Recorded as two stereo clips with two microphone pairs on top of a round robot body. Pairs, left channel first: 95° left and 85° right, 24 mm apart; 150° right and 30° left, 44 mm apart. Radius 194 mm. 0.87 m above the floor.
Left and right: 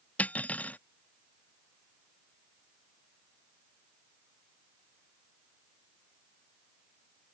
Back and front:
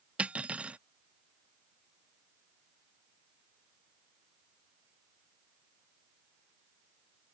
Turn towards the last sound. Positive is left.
turn(degrees=90)